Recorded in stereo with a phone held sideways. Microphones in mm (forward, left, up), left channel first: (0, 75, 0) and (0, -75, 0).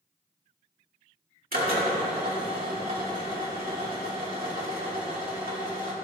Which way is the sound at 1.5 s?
75° right (ahead or behind).